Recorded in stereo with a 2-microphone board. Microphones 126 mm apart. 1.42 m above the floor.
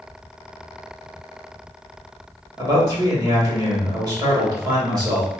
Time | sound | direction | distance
2.6 | a man speaking | 35° right (ahead or behind) | 2.0 m